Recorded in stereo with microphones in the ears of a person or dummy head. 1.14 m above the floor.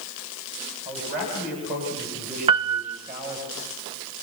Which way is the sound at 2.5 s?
25° right (ahead or behind).